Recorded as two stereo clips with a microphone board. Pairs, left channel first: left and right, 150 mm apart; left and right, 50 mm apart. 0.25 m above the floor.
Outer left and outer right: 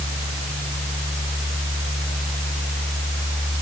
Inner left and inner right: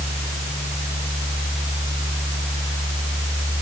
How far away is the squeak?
I don't hear a squeak.